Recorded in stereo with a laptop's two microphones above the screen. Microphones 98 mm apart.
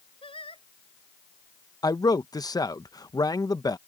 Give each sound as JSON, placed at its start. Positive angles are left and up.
{"t": 0.2, "sound": "singing", "side_deg": 65}
{"t": 1.8, "sound": "a man speaking", "side_deg": 40}